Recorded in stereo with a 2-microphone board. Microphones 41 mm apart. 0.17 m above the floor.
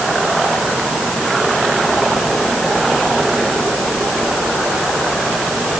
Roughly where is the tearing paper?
I don't hear tearing paper.